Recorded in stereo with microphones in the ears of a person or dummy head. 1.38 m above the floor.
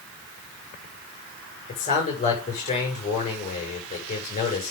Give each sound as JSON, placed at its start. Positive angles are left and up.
{"t": 1.7, "sound": "a man speaking", "side_deg": 40, "distance_m": 7.0}